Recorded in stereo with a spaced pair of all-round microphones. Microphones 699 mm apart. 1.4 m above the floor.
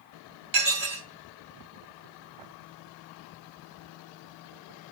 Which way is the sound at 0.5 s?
70° right (ahead or behind).